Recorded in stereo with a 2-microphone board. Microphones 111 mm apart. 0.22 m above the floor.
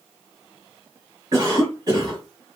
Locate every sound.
1.3 s a cough: 35° right (ahead or behind), 1.4 m